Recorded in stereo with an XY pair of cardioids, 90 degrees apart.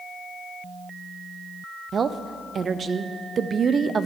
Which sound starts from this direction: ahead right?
A woman speaking, at 1.9 s.